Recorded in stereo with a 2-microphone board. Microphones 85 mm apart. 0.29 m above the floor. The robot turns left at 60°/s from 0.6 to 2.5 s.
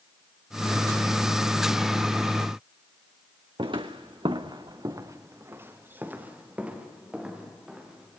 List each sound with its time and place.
3.6 s footsteps: 70° right (ahead or behind), 1.8 m; by 8.2 s 5° right (ahead or behind), 6.5 m